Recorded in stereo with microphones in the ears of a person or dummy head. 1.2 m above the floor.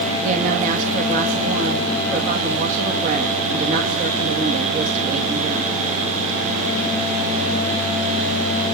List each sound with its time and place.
0.2 s a woman speaking: 50° right (ahead or behind), 1.3 m